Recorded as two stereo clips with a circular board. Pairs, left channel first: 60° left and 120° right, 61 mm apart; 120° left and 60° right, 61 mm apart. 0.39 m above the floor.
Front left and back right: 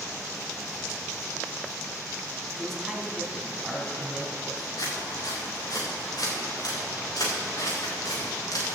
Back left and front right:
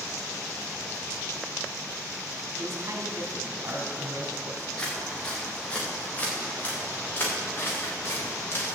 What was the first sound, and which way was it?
A man speaking, 25° right.